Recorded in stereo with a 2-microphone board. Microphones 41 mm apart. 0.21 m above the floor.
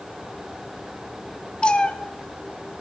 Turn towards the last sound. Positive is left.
turn(degrees=25)  # may be behind; listen again after turning